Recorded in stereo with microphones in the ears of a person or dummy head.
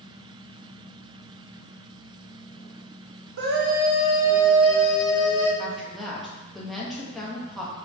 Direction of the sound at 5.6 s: Centre (ahead or behind).